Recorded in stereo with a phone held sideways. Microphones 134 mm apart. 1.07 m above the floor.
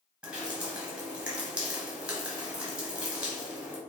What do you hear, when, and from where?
0.2 s dripping: 10° right (ahead or behind), 0.9 m